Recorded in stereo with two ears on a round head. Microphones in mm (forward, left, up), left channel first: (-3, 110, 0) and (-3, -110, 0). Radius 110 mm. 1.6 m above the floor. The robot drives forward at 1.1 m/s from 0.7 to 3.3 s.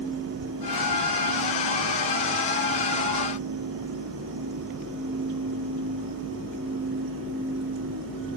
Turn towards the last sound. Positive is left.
No sound to turn to.